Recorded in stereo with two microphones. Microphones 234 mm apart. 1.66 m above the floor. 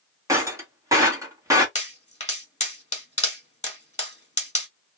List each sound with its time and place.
0.3 s breaking glass: 15° right (ahead or behind), 1.6 m
1.8 s a pop: 30° left (ahead or behind), 1.7 m